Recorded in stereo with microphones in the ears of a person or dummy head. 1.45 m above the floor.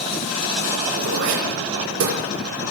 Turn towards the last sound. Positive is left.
turn(degrees=-75)  # may be behind; listen again after turning